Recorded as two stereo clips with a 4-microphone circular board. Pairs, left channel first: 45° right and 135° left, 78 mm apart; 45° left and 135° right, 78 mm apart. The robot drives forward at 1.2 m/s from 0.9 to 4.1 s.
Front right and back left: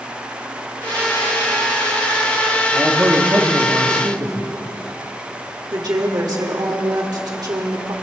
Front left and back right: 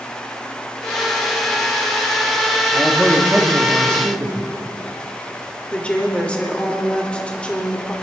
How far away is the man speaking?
About 1.2 m.